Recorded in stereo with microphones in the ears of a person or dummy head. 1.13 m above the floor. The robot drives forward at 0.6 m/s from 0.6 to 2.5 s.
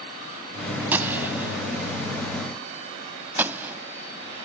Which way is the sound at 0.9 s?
10° right (ahead or behind).